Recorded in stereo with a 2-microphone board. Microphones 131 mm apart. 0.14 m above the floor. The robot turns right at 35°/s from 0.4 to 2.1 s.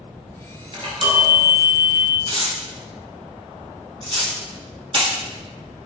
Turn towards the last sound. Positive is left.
turn(degrees=-45)  # may be behind; listen again after turning